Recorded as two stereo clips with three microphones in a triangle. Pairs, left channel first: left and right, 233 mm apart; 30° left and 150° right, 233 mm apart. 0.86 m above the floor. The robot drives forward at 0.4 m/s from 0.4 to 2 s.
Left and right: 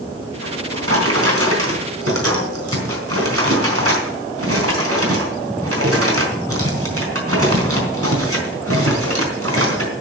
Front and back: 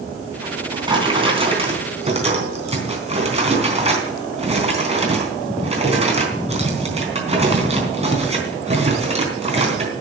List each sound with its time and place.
0.4 s a drawer: 75° right, 4 m; by 9.9 s 85° right, 3.5 m